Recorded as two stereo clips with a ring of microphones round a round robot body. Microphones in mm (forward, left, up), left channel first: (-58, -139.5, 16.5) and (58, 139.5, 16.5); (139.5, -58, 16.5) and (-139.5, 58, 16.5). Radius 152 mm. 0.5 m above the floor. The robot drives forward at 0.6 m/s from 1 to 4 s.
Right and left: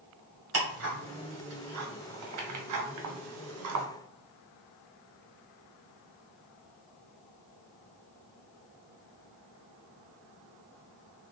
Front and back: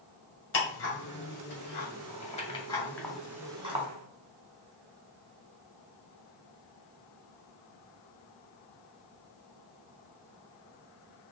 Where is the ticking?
25° left, 1.9 m; by 3.9 s 95° left, 1.1 m.